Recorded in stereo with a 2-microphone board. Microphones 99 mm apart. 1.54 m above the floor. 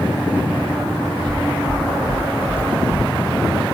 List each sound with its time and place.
1.3 s footsteps: 35° right (ahead or behind), 1.9 m; by 3.1 s centre (ahead or behind), 1.6 m